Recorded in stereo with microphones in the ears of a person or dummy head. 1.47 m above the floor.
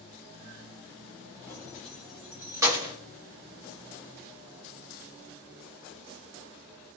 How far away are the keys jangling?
About 1.3 m.